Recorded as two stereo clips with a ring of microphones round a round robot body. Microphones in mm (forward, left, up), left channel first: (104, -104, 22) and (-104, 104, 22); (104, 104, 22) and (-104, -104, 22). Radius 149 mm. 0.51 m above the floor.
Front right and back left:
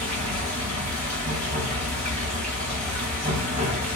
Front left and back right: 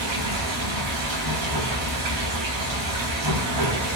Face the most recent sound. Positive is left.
turn(degrees=-155)